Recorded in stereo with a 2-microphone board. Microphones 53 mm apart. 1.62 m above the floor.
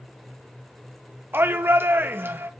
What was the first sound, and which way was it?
A shout, 45° right (ahead or behind).